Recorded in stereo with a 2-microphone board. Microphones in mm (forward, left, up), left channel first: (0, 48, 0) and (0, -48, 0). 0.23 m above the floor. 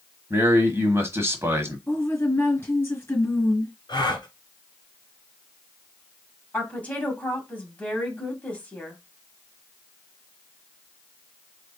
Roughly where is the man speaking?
Right.